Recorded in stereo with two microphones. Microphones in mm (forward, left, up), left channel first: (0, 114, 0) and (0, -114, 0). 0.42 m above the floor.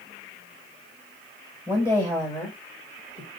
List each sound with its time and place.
1.7 s a woman speaking: 5° left (ahead or behind), 1.9 m; by 3.3 s 30° left (ahead or behind), 1.8 m